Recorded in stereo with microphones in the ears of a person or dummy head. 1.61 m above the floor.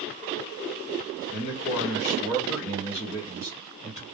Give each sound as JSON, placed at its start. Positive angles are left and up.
{"t": 1.3, "sound": "a man speaking", "side_deg": 65, "distance_m": 1.1}